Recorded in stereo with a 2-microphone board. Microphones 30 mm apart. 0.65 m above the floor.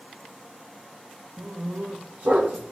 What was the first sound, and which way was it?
A dog barking, 85° right.